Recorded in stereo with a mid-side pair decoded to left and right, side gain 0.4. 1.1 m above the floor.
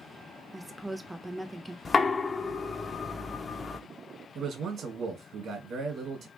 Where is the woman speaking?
5° right, 0.5 m.